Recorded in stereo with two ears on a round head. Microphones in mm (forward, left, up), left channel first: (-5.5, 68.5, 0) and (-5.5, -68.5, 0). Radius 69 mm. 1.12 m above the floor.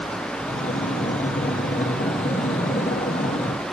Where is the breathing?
45° left (ahead or behind), 0.9 m.